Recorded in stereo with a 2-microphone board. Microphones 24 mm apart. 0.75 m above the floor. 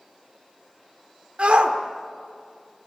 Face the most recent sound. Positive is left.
turn(degrees=-55)  # may be behind; listen again after turning